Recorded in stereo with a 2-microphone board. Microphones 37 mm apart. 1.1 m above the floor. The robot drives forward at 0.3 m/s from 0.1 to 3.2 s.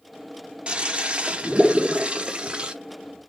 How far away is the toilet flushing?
About 0.6 m.